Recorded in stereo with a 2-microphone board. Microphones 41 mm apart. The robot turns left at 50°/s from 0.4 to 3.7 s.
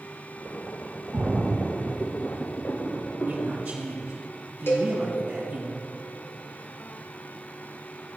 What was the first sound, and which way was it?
A splash, 25° right (ahead or behind).